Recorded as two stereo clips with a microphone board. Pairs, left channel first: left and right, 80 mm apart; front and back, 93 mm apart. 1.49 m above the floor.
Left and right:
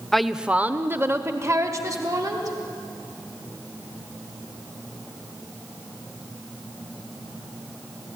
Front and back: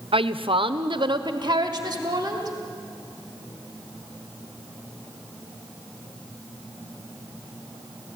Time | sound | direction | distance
0.1 | a woman speaking | 175° left | 0.7 m